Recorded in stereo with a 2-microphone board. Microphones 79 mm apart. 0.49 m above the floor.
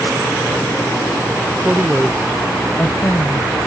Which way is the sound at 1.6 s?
30° right (ahead or behind).